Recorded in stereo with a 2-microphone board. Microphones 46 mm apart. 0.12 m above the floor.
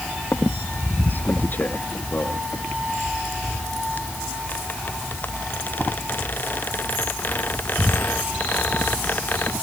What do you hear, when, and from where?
0.3 s a squeak: 45° left (ahead or behind)